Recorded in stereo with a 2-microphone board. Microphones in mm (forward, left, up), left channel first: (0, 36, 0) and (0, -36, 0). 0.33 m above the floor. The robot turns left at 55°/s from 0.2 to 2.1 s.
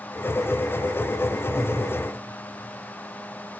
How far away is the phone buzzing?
I don't hear a phone buzzing.